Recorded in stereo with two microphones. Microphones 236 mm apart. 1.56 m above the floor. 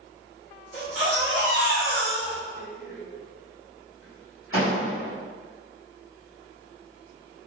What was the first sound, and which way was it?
A baby crying, 70° left (ahead or behind).